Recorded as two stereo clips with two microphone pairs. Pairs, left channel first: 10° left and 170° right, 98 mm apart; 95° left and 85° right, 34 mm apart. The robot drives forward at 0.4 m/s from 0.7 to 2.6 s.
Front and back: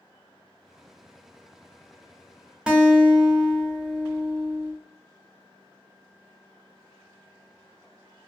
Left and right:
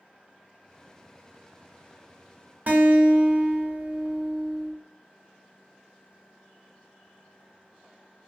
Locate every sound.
2.7 s a guitar: 90° right, 0.5 m